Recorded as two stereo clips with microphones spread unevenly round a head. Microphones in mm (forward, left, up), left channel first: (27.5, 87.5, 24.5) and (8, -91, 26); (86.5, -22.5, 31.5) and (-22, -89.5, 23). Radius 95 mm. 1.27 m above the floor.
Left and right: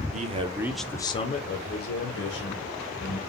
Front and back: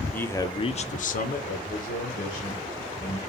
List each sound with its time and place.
0.1 s a man speaking: 50° right, 0.6 m; by 3.2 s 70° left, 1.4 m